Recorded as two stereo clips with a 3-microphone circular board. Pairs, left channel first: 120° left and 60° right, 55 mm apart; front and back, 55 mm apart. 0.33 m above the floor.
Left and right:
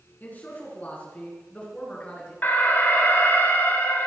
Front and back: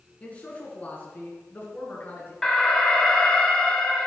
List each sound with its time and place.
0.2 s a man speaking: 65° left, 5 m; by 2.3 s 50° left, 6 m
2.4 s an alarm: 75° left, 2.5 m